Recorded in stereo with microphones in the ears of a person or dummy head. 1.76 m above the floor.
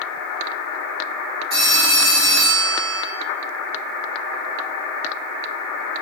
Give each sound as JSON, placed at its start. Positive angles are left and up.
{"t": 1.5, "sound": "a phone ringing", "side_deg": -25, "distance_m": 2.0}